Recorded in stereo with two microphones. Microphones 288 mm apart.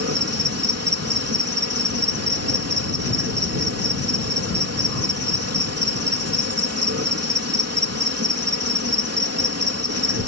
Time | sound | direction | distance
0.0 | an insect | 55° right (ahead or behind) | ?